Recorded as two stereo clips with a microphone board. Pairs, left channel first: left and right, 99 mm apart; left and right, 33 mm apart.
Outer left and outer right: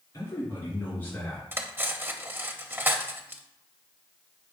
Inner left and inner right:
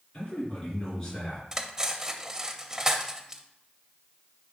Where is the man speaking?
40° left (ahead or behind), 3 m; by 1.4 s 20° left (ahead or behind), 2.5 m.